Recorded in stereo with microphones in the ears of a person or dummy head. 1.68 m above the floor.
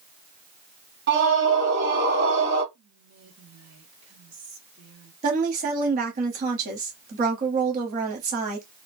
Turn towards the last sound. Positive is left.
turn(degrees=-45)  # may be behind; listen again after turning